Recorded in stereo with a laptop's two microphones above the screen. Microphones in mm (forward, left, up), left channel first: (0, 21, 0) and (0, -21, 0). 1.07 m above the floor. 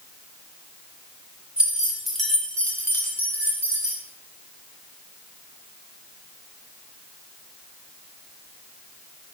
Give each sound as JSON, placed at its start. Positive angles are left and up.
{"t": 1.6, "sound": "keys jangling", "side_deg": -30, "distance_m": 1.3}